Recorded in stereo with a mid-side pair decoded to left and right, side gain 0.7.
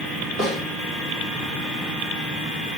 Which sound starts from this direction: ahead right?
A snare drum, at 0.4 s.